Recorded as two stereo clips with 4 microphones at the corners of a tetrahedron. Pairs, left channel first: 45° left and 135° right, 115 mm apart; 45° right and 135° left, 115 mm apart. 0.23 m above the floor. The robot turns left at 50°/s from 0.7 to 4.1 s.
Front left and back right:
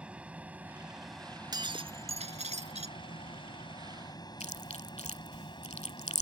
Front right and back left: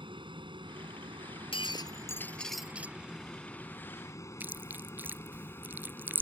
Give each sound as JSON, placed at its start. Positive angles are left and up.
{"t": 0.0, "sound": "an aircraft", "azimuth_deg": 150}
{"t": 1.5, "sound": "breaking glass", "azimuth_deg": -80}
{"t": 4.4, "sound": "chewing", "azimuth_deg": 65}